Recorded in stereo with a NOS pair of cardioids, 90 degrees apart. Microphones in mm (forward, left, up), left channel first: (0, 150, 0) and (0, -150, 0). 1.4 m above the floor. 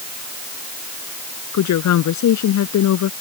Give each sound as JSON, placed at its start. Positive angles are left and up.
{"t": 1.5, "sound": "a woman speaking", "azimuth_deg": 70}